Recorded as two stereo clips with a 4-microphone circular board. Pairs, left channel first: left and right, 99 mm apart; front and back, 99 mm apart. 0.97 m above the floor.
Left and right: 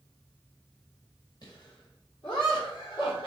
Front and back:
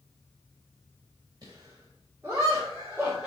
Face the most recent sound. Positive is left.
turn(degrees=100)